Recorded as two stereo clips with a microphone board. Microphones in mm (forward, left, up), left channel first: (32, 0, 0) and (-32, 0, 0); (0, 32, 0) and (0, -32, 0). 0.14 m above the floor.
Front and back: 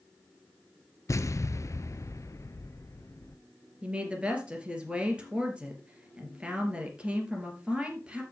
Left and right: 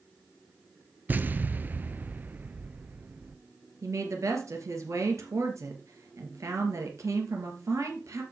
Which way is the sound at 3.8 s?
110° right.